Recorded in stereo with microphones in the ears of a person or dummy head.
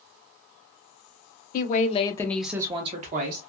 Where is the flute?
I don't hear a flute.